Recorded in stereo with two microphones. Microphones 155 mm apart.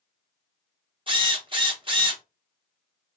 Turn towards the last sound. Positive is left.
turn(degrees=-35)  # may be behind; listen again after turning